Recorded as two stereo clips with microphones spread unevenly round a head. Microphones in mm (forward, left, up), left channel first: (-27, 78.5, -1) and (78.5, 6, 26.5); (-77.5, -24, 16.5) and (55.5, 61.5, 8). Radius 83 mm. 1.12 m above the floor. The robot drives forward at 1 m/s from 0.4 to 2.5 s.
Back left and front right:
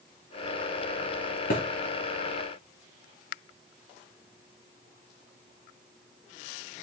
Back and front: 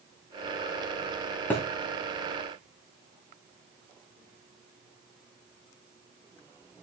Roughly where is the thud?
Behind left.